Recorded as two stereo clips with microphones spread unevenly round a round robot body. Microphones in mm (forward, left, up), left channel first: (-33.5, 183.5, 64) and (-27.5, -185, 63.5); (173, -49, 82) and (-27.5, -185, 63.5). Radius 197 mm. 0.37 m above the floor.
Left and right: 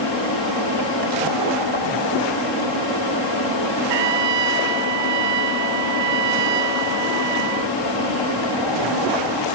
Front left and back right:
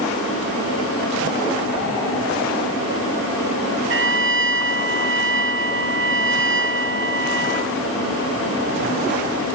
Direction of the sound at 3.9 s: 105° right.